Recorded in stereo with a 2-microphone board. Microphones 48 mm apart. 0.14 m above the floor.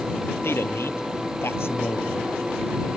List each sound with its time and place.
0.4 s a man speaking: 55° left (ahead or behind)